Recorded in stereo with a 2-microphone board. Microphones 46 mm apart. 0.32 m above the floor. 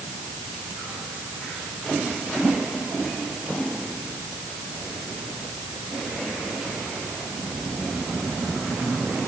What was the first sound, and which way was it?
Only background noise.